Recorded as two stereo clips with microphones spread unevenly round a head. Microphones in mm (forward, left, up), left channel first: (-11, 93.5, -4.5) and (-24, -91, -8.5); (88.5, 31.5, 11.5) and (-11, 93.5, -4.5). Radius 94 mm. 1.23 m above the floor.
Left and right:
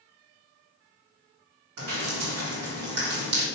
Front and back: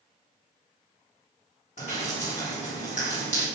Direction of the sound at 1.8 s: 90° right.